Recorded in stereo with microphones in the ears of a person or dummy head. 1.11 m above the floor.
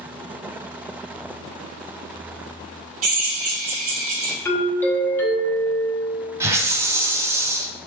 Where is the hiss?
10° right (ahead or behind), 0.5 m.